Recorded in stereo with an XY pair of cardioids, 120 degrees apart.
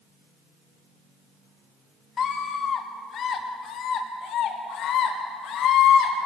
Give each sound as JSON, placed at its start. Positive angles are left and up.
{"t": 2.2, "sound": "a scream", "azimuth_deg": 40, "distance_m": 2.5}